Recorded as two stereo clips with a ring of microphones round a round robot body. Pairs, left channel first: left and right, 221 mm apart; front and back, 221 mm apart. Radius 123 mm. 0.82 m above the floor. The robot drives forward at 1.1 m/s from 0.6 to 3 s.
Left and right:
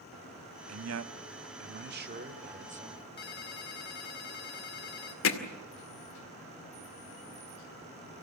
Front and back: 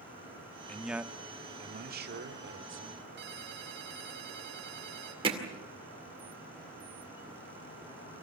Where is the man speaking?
85° right, 1.4 m; by 3.1 s 150° right, 3 m.